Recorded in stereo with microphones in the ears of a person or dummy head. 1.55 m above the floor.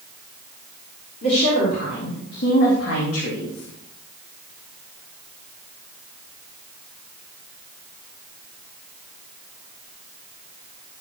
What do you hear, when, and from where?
1.2 s a woman speaking: 50° left (ahead or behind), 4 m; by 3.7 s 75° left (ahead or behind), 1.7 m